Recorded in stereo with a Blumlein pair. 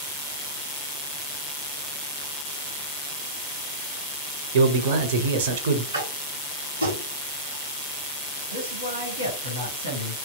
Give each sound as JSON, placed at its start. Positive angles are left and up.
{"t": 4.5, "sound": "a man speaking", "azimuth_deg": -55, "distance_m": 0.7}
{"t": 5.9, "sound": "tapping", "azimuth_deg": -70, "distance_m": 1.0}
{"t": 8.5, "sound": "a man speaking", "azimuth_deg": -65, "distance_m": 1.3}